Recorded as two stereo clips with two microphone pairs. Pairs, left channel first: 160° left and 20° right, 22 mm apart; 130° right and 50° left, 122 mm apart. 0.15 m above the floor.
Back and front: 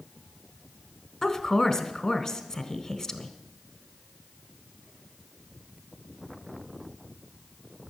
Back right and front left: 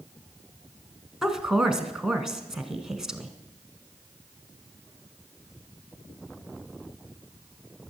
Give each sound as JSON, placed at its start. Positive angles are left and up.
{"t": 1.2, "sound": "a woman speaking", "azimuth_deg": 135, "distance_m": 1.3}